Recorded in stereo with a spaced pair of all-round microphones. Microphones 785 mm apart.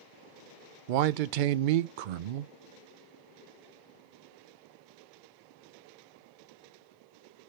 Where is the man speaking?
80° right, 0.6 m.